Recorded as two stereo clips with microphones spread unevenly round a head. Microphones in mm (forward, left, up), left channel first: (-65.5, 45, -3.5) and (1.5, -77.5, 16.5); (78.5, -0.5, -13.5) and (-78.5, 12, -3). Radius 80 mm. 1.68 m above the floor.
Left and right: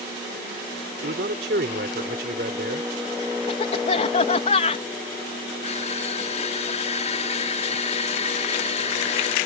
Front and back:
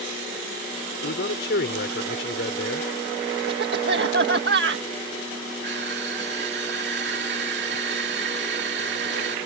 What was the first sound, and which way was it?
A man speaking, 30° right.